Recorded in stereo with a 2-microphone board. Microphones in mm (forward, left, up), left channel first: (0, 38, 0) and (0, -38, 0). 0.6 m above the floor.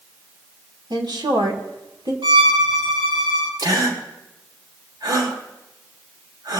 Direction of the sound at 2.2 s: 80° right.